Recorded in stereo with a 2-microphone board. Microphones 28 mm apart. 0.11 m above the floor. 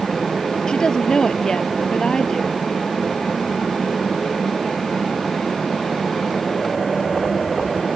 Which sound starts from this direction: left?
A woman speaking, at 0.7 s.